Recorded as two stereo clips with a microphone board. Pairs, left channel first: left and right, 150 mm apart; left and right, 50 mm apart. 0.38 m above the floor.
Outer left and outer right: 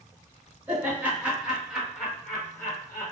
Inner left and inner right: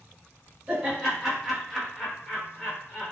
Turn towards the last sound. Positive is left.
turn(degrees=20)  # may be behind; listen again after turning